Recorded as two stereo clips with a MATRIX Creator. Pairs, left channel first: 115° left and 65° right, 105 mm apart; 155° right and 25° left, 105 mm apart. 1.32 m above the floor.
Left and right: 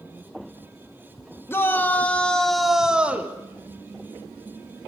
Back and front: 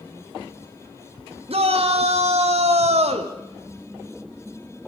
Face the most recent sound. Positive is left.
turn(degrees=5)